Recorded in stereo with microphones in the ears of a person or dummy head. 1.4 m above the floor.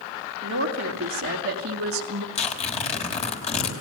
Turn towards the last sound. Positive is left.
turn(degrees=40)  # may be behind; listen again after turning